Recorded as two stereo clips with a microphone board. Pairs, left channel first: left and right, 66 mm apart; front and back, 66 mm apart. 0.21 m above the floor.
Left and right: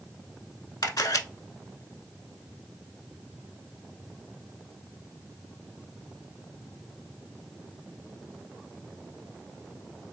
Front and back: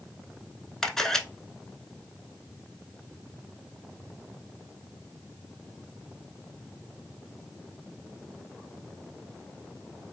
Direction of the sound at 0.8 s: 80° left.